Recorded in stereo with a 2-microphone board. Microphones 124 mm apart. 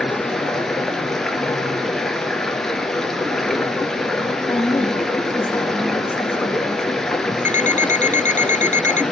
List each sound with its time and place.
0.0 s running water: 5° left (ahead or behind), 1.6 m
4.5 s a woman speaking: 15° left (ahead or behind), 2.5 m
7.5 s an alarm clock: 75° left (ahead or behind), 0.5 m